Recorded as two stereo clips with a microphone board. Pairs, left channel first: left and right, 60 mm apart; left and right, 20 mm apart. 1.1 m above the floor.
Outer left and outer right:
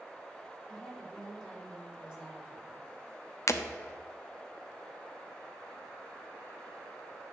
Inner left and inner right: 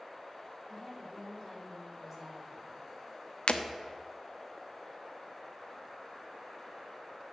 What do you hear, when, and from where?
0.7 s a woman speaking: 5° left (ahead or behind), 3.5 m; by 2.9 s 25° right (ahead or behind), 4 m
3.5 s breaking glass: 65° left (ahead or behind), 1.0 m